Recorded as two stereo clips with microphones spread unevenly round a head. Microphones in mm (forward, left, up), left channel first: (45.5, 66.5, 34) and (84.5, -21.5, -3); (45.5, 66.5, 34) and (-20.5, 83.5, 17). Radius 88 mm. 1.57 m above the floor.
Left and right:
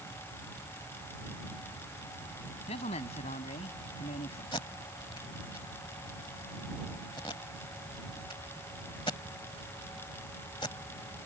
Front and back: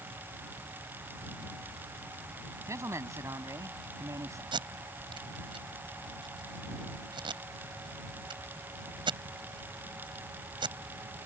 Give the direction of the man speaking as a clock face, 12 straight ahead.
8 o'clock.